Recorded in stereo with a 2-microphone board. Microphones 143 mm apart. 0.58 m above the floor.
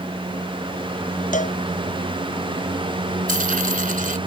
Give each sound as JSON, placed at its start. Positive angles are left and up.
{"t": 1.3, "sound": "a cowbell", "side_deg": 65}
{"t": 3.3, "sound": "a dropped coin", "side_deg": -75}